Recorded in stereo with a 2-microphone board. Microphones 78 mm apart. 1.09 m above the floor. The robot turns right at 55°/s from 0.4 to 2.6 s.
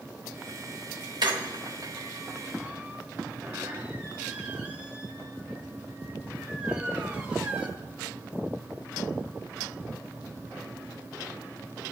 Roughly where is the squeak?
Right.